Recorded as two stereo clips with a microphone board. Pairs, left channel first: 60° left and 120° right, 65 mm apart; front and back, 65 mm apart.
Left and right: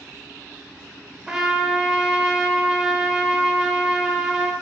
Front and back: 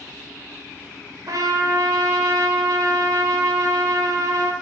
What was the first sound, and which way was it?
A trumpet, 160° left.